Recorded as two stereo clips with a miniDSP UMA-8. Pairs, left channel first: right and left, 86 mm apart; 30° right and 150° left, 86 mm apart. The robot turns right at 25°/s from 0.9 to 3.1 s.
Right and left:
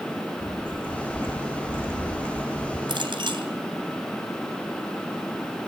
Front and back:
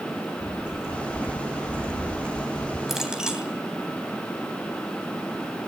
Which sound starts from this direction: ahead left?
A clink, at 2.9 s.